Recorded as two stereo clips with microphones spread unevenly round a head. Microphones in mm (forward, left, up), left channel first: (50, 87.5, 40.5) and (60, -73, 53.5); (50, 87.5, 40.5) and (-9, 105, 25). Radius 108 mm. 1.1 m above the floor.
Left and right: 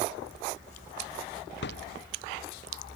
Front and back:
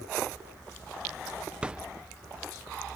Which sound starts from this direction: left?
A thud, at 1.6 s.